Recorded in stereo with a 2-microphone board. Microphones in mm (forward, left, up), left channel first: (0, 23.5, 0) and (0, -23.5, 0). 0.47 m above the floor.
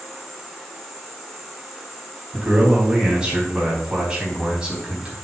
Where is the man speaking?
20° right (ahead or behind), 4 m.